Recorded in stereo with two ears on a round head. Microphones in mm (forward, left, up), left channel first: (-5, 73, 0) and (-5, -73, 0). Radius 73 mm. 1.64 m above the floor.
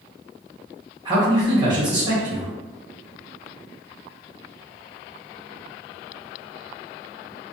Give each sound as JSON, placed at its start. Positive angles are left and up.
{"t": 1.1, "sound": "a man speaking", "side_deg": -25, "distance_m": 1.2}